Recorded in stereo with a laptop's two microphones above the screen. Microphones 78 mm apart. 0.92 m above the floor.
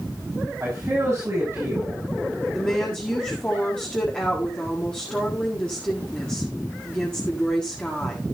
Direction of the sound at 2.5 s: 15° left (ahead or behind).